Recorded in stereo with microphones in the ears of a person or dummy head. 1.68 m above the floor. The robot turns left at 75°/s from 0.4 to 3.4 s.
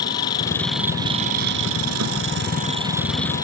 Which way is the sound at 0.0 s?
25° left.